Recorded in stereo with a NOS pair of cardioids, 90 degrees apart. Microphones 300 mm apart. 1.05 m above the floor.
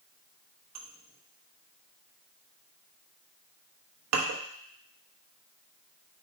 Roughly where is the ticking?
I don't hear ticking.